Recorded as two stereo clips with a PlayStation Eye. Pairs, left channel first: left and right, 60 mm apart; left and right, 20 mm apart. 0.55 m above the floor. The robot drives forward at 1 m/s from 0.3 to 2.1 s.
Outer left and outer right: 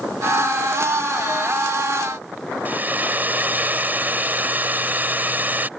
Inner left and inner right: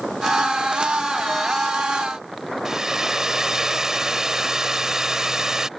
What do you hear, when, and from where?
2.6 s a hair dryer: 30° right (ahead or behind)